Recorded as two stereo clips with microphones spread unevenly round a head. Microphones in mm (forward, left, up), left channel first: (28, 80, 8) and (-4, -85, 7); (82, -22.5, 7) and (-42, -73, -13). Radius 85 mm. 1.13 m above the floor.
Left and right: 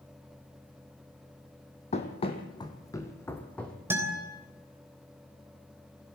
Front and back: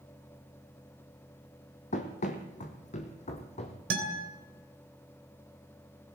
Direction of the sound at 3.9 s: Straight behind.